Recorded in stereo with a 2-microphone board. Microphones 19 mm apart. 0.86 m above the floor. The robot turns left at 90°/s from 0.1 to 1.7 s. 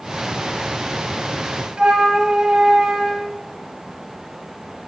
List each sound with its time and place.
1.8 s a flute: 70° right (ahead or behind), 1.9 m